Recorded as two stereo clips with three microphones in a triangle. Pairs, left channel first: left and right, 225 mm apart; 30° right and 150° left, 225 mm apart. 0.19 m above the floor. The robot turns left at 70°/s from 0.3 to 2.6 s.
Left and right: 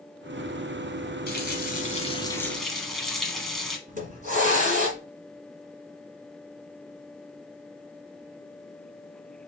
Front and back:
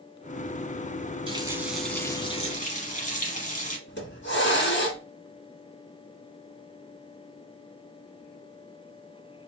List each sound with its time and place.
1.3 s a running tap: 95° left, 1.1 m; by 3.8 s straight ahead, 1.1 m
3.9 s a hiss: 45° right, 1.7 m